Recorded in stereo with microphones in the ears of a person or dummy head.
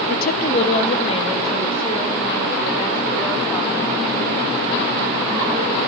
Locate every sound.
0.1 s a woman speaking: 55° left (ahead or behind), 0.6 m; by 5.8 s 20° left (ahead or behind), 6 m